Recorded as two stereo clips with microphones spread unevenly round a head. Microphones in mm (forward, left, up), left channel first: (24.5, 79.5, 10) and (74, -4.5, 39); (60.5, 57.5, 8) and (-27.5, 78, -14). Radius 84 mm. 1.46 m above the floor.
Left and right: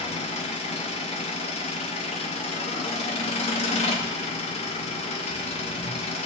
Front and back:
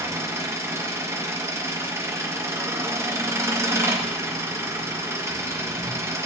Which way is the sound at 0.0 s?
100° left.